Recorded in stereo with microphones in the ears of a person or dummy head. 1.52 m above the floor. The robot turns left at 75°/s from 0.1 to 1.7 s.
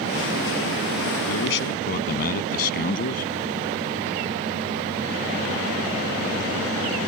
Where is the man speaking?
80° left; by 3.2 s 50° left.